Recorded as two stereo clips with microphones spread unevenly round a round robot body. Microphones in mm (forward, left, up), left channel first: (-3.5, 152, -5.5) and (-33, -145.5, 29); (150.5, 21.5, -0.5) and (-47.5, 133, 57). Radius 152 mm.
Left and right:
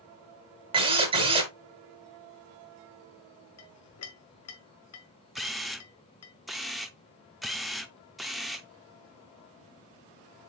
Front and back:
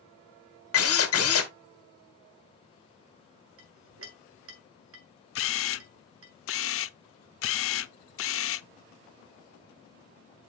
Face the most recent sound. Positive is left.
turn(degrees=-5)